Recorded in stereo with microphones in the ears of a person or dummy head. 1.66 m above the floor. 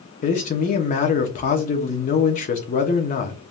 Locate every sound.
0.2 s a man speaking: 45° left (ahead or behind), 0.8 m